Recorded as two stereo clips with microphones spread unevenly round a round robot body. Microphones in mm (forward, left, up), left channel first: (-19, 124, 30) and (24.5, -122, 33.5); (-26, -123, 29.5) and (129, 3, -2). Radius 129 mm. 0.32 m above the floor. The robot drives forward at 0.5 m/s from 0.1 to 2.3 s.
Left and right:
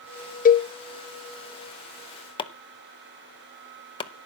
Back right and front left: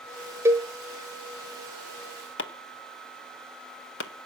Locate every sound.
0.5 s a cowbell: 90° left, 0.6 m; by 0.7 s 110° left, 0.6 m
2.4 s chopping: 170° left, 0.8 m